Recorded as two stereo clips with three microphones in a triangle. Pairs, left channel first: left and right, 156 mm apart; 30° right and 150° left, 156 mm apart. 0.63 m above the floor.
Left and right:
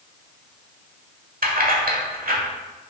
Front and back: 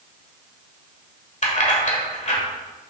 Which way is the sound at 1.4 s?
70° right.